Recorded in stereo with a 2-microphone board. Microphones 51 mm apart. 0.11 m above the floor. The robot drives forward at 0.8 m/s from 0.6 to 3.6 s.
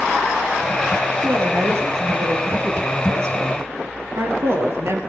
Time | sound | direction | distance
1.2 | a woman speaking | 55° right (ahead or behind) | 3 m